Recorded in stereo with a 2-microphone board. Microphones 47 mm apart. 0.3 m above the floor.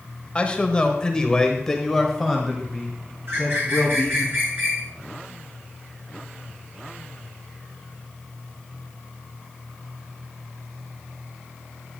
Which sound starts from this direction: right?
A bird, at 3.3 s.